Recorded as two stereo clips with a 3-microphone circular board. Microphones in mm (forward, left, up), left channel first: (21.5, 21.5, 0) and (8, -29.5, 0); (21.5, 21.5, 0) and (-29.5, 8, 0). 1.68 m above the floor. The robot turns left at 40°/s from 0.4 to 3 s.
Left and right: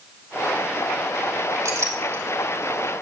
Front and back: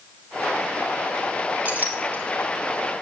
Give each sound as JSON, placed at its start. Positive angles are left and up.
{"t": 1.6, "sound": "a clink", "azimuth_deg": -105, "distance_m": 2.5}